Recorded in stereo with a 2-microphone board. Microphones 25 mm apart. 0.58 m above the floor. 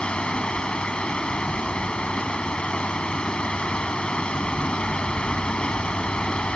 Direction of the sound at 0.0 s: 45° left (ahead or behind).